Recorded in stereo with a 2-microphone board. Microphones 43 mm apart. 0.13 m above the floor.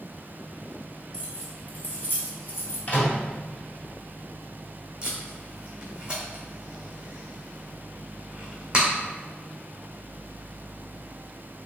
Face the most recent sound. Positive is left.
turn(degrees=-20)  # may be behind; listen again after turning